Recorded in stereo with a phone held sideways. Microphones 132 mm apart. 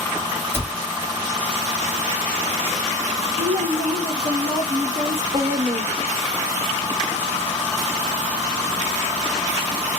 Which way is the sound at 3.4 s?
70° right (ahead or behind).